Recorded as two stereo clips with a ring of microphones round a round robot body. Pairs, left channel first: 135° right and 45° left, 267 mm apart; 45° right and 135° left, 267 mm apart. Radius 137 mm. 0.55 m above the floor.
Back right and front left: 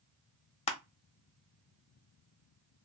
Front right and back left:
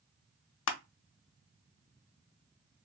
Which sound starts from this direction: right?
Crushing, at 0.7 s.